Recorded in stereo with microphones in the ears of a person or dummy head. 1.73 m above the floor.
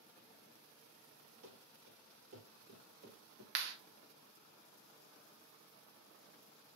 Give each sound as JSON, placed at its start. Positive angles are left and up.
{"t": 1.4, "sound": "running footsteps", "side_deg": -45, "distance_m": 2.5}
{"t": 3.5, "sound": "a clap", "side_deg": -60, "distance_m": 1.4}